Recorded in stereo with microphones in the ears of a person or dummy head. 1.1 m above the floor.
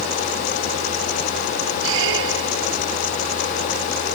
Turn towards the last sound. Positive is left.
turn(degrees=-75)  # may be behind; listen again after turning